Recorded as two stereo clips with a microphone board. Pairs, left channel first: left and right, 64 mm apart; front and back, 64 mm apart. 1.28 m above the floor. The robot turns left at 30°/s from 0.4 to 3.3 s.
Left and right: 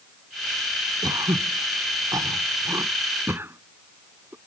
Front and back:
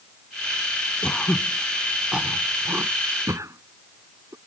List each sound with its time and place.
1.0 s throat clearing: 75° right; by 4.4 s 145° right